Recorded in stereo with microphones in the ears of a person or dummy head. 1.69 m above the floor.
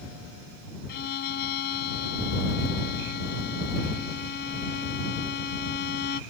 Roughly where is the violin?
Left.